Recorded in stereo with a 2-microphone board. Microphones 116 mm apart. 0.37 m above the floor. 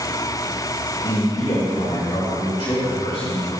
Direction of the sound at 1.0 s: 55° left (ahead or behind).